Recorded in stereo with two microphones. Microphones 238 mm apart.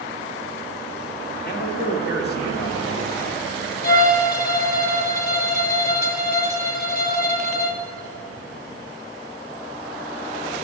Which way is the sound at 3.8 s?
40° left (ahead or behind).